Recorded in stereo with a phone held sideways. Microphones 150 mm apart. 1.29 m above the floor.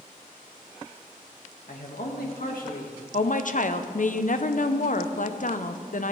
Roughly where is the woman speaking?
Left.